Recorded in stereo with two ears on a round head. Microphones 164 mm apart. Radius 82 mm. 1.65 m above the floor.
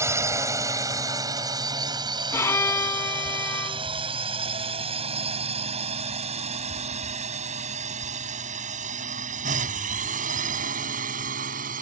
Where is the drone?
15° right (ahead or behind); by 11.8 s 50° right (ahead or behind).